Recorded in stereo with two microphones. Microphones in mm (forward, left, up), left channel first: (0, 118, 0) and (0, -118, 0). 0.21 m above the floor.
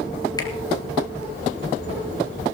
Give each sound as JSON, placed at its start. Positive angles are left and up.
{"t": 0.4, "sound": "a finger snap", "side_deg": 15, "distance_m": 3.0}